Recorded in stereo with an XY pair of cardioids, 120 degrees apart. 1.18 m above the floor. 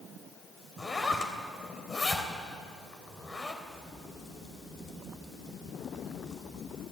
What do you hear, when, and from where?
0.8 s a zipper: 25° left, 3 m
3.6 s a crack: 30° left, 3 m